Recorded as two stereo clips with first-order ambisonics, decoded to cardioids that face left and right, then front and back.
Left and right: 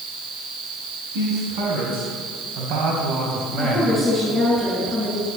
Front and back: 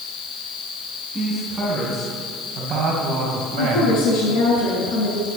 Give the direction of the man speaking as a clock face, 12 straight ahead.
3 o'clock.